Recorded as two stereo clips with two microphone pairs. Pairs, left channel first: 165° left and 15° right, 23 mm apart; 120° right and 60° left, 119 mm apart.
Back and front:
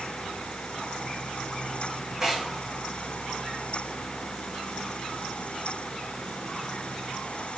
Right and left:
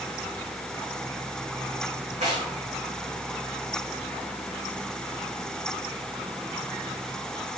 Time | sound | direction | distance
2.2 | tearing paper | 60° left | 4.5 m